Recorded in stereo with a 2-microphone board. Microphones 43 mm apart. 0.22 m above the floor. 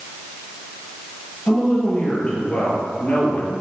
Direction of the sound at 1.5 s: 20° left (ahead or behind).